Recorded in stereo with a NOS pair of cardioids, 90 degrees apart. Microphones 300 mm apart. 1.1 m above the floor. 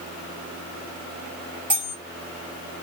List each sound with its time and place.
1.7 s cutlery clinking: 5° right, 1.7 m